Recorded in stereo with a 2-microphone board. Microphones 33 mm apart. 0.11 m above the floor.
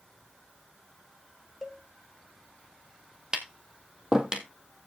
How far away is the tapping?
About 1.7 m.